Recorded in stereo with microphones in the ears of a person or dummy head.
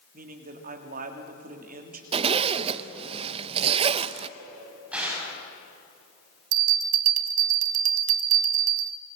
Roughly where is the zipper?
Right.